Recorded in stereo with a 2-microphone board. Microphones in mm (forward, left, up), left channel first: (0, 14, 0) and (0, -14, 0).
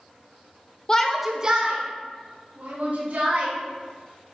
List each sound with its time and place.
0.9 s a shout: 25° left (ahead or behind), 0.9 m; by 3.5 s 70° right (ahead or behind), 4 m